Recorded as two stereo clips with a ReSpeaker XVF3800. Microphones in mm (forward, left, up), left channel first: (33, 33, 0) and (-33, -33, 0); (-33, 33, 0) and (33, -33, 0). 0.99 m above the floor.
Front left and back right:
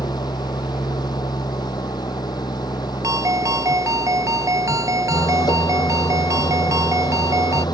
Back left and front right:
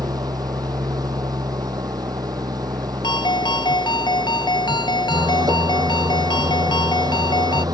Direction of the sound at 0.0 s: Straight ahead.